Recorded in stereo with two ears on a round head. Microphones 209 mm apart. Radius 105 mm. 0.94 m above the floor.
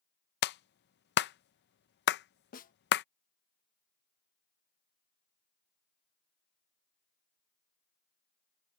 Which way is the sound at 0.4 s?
45° left (ahead or behind).